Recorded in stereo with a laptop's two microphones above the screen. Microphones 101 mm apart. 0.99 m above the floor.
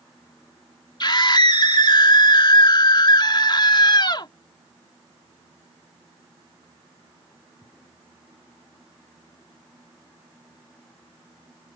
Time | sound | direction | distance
1.0 | a scream | 45° left (ahead or behind) | ?